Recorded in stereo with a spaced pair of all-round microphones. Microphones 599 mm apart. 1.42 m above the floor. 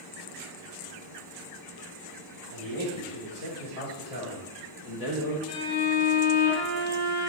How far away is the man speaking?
About 4.5 m.